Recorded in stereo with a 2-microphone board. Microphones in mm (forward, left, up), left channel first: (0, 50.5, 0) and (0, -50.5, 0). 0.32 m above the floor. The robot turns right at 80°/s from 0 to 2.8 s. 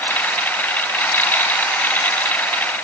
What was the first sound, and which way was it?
Only background noise.